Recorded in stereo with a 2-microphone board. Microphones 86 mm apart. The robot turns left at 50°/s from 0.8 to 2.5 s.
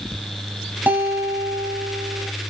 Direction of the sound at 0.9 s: 25° right.